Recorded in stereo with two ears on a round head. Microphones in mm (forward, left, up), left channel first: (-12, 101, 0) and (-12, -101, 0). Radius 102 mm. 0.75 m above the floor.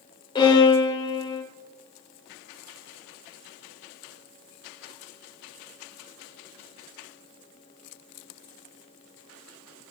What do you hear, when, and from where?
0.3 s a violin: 25° left (ahead or behind), 3 m